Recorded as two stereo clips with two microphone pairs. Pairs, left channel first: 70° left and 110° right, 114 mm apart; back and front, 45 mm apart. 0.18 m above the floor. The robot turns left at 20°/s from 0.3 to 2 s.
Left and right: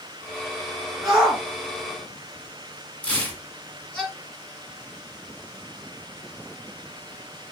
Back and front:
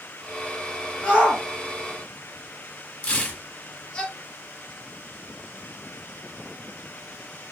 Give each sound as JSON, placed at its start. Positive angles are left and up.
{"t": 1.0, "sound": "a shout", "azimuth_deg": 165, "distance_m": 1.6}
{"t": 3.0, "sound": "tearing paper", "azimuth_deg": 130, "distance_m": 1.3}